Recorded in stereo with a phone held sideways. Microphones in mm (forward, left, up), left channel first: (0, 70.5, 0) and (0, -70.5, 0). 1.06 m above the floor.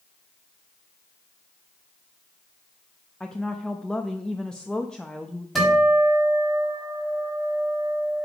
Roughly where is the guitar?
Centre.